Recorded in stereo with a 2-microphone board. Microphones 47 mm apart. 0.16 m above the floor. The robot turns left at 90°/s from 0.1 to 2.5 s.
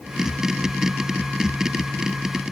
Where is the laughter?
I don't hear laughter.